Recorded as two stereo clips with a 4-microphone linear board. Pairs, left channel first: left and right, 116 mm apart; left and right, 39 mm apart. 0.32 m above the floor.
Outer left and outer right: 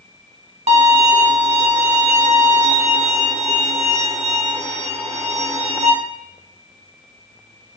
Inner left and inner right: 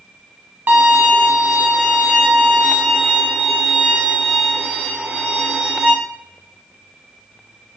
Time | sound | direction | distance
0.7 | a violin | 60° right (ahead or behind) | 0.9 m